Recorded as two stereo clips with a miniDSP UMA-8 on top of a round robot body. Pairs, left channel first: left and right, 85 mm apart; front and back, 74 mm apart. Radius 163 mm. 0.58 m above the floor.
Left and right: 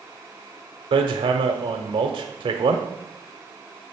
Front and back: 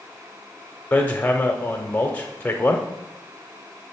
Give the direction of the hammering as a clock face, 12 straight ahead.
2 o'clock.